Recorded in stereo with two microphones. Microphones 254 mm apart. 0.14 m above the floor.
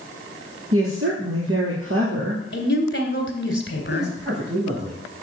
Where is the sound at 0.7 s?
60° right (ahead or behind), 2.5 m.